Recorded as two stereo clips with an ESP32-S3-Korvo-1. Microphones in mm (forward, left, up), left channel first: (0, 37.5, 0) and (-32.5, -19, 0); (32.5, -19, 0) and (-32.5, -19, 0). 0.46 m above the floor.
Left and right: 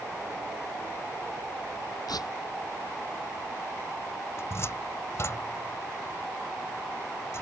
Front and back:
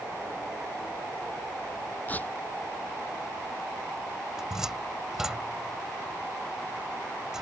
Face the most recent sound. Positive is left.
turn(degrees=100)